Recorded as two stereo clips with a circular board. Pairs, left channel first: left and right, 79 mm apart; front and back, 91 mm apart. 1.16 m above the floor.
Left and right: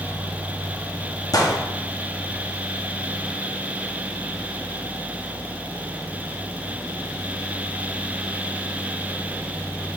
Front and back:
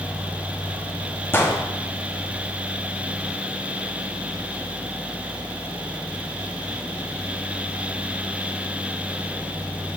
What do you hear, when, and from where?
1.3 s a gunshot: 60° left, 0.9 m